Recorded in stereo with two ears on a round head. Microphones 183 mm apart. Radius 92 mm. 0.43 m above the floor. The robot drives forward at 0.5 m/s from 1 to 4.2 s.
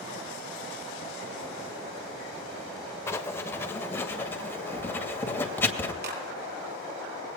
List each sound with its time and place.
3.1 s writing: 15° left (ahead or behind), 1.8 m; by 5.9 s 10° left (ahead or behind), 2.5 m
6.0 s a clap: 55° right (ahead or behind), 7.5 m